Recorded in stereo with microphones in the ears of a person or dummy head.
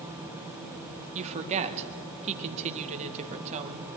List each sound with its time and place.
1.1 s a woman speaking: 35° right (ahead or behind), 1.7 m